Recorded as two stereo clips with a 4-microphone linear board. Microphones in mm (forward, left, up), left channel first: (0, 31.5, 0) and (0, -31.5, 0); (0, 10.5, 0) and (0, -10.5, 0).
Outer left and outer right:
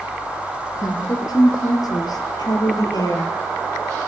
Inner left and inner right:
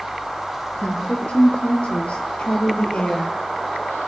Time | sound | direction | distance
0.7 | a woman speaking | 70° left (ahead or behind) | 4.5 m